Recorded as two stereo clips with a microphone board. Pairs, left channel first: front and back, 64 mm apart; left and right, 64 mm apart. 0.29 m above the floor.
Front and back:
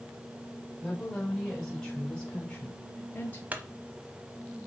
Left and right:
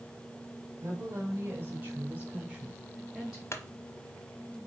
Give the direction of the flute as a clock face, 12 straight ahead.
I don't hear a flute.